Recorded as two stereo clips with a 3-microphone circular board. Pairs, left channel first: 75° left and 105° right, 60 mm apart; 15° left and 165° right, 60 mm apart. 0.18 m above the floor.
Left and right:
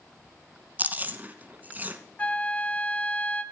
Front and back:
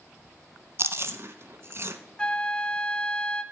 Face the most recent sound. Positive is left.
turn(degrees=60)